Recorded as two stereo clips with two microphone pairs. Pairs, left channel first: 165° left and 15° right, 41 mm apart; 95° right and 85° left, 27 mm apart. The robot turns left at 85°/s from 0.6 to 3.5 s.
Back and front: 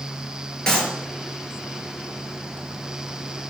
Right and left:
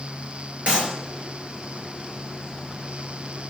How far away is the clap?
About 4 m.